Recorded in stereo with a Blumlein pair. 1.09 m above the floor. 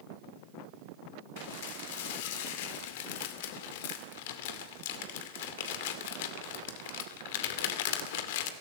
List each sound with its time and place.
1.4 s dishes clattering: 50° left, 2.5 m